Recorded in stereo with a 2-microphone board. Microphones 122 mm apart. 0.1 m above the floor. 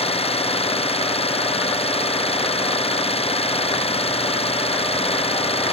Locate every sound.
0.0 s an engine running: 55° left (ahead or behind)